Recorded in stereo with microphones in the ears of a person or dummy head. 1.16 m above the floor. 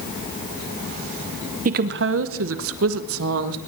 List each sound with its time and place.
1.6 s a woman speaking: 40° right (ahead or behind), 0.6 m; by 3.6 s 75° right (ahead or behind), 1.8 m